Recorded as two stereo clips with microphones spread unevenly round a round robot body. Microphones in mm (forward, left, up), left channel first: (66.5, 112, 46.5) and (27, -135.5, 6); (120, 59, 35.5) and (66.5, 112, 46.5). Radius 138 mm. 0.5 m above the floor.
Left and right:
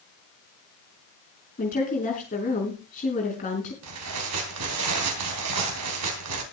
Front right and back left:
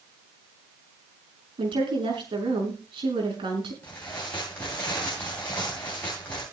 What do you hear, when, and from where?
1.6 s a woman speaking: 145° left, 5 m
3.8 s tearing paper: 120° right, 3 m